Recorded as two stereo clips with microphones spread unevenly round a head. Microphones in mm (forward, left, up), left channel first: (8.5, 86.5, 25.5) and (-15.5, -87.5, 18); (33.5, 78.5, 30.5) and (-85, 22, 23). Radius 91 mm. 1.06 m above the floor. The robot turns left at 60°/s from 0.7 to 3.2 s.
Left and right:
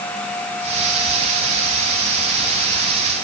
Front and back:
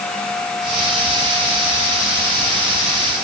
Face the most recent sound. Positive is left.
No sound to turn to.